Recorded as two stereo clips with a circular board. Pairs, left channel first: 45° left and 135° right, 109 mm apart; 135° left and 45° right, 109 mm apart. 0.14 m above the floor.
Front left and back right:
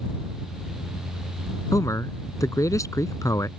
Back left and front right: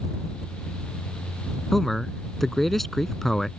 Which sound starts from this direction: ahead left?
A man speaking, at 1.7 s.